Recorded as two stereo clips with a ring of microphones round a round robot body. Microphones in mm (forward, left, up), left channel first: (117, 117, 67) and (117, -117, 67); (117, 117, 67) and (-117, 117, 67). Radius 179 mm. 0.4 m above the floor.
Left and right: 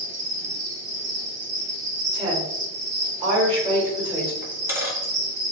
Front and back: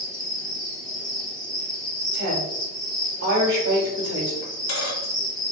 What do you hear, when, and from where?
0.0 s an insect: 70° right, 1.0 m
2.1 s a woman speaking: 165° right, 1.4 m
4.4 s a dropped coin: 10° right, 1.1 m